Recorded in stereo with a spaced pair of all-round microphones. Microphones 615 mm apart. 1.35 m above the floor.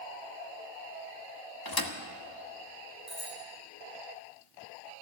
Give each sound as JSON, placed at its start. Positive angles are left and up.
{"t": 1.6, "sound": "a thud", "side_deg": 35, "distance_m": 1.1}
{"t": 3.1, "sound": "a bicycle bell", "side_deg": -10, "distance_m": 7.0}